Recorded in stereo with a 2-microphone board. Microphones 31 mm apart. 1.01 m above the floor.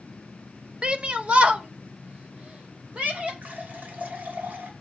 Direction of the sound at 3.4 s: 70° right (ahead or behind).